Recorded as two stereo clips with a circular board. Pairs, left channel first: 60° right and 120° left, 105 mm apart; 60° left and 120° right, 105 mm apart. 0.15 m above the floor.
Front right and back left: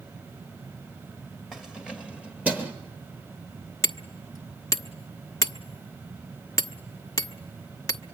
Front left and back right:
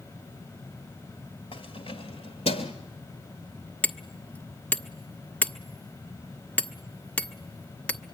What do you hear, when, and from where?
1.5 s keys jangling: 35° left, 2 m; by 2.7 s 45° left, 2.5 m
3.8 s hammering: 15° right, 0.9 m